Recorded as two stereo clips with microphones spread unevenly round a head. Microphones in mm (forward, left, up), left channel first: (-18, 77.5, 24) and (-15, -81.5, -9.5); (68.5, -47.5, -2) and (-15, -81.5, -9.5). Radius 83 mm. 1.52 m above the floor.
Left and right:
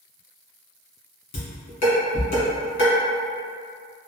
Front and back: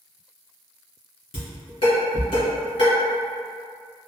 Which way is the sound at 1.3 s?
60° left.